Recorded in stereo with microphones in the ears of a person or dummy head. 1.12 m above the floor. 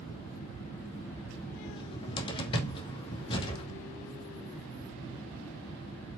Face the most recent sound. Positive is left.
turn(degrees=30)  # may be behind; listen again after turning